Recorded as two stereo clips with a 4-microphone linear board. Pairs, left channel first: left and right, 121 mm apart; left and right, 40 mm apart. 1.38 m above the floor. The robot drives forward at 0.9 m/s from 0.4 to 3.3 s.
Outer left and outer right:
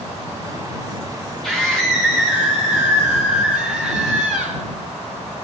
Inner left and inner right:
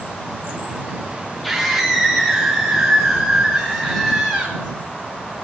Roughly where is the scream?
Centre.